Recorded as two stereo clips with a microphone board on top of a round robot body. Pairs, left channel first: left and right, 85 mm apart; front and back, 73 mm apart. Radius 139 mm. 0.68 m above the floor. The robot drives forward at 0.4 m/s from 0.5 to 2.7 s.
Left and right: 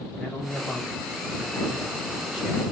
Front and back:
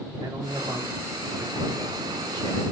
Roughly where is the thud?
No thud in this recording.